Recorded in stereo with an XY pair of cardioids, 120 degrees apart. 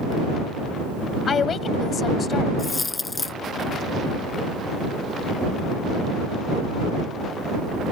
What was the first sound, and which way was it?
A woman speaking, 40° left.